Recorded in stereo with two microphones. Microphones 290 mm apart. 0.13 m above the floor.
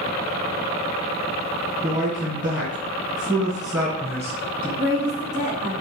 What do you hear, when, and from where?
1.8 s a man speaking: 15° right (ahead or behind), 1.4 m; by 4.7 s 5° right (ahead or behind), 1.9 m
4.8 s a woman speaking: 15° right (ahead or behind), 1.2 m